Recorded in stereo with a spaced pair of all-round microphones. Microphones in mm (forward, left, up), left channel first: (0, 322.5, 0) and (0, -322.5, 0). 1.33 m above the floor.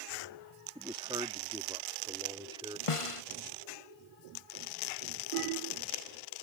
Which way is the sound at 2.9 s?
55° left (ahead or behind).